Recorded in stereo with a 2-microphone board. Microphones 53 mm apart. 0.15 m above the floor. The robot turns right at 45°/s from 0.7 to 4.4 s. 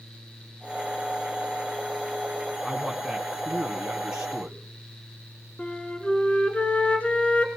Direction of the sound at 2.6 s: Centre (ahead or behind).